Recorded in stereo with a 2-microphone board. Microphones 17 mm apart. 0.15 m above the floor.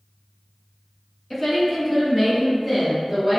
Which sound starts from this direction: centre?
A woman speaking, at 1.3 s.